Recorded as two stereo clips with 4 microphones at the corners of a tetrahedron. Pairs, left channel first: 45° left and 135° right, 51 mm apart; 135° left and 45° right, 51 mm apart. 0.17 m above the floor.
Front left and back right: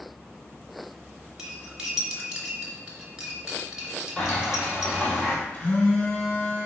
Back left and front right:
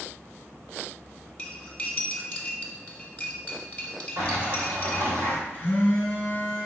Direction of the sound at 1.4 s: 160° left.